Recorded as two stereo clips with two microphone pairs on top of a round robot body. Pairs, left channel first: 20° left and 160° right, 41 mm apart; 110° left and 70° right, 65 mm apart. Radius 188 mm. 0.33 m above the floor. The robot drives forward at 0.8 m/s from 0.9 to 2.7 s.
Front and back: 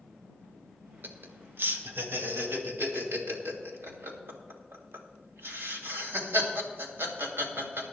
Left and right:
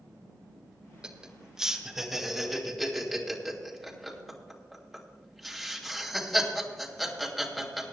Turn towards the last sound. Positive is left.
turn(degrees=-160)